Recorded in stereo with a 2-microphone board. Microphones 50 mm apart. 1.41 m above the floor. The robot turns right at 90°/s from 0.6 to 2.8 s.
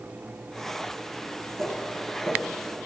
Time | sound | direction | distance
1.6 | footsteps | 55° right (ahead or behind) | 2 m